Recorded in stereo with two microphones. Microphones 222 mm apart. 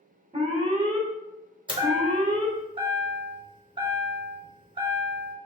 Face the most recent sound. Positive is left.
turn(degrees=-20)  # may be behind; listen again after turning